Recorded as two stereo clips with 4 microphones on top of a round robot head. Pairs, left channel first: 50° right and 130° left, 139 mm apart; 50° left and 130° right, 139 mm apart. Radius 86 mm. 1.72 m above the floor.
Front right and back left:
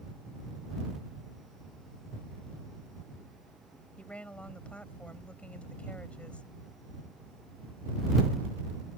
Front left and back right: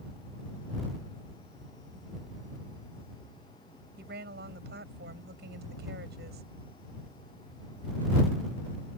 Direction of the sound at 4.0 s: 130° right.